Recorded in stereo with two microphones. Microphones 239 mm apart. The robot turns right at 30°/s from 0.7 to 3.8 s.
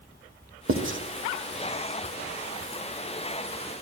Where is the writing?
60° right (ahead or behind), 1.1 m; by 1.0 s 50° right (ahead or behind), 1.1 m.